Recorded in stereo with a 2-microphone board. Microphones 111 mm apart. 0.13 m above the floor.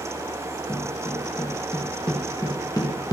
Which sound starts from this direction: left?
Footsteps, at 0.7 s.